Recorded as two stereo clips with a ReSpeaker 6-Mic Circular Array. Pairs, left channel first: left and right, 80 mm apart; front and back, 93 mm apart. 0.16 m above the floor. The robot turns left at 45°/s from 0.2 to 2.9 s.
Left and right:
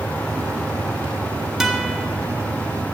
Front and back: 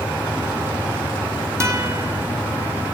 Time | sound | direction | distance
1.6 | a guitar | 170° right | 1.7 m